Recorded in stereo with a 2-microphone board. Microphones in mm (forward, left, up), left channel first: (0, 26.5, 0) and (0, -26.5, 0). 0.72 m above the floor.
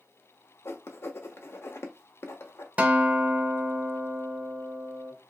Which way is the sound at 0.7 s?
55° left (ahead or behind).